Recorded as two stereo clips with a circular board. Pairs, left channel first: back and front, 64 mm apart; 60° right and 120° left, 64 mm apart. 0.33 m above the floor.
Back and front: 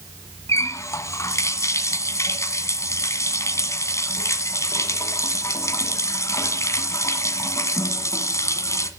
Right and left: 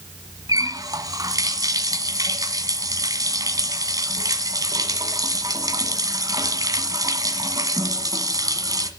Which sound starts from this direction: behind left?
A running tap, at 0.5 s.